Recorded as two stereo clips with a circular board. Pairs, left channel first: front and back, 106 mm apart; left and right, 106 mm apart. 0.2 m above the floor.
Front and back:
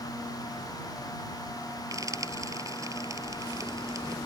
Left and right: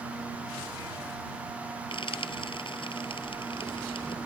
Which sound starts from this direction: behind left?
Frying, at 1.9 s.